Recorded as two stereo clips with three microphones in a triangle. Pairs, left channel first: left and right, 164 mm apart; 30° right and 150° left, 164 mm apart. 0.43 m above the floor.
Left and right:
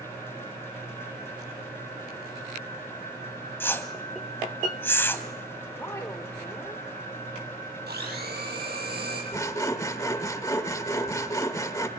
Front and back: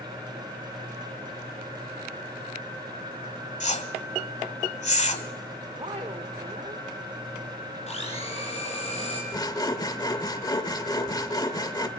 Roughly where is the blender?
Right.